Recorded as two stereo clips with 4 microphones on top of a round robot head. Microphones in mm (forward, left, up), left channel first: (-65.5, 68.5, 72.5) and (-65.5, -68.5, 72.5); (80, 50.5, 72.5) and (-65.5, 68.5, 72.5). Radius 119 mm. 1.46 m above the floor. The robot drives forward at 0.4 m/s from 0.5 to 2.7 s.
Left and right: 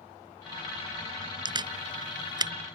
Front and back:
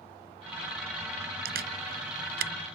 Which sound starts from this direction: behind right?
A camera shutter, at 1.4 s.